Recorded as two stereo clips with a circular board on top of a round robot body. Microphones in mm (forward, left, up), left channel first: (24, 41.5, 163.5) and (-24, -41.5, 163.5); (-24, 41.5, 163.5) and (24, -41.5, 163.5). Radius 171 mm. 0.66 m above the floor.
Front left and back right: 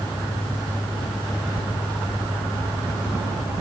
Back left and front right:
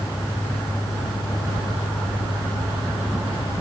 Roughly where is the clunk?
I don't hear a clunk.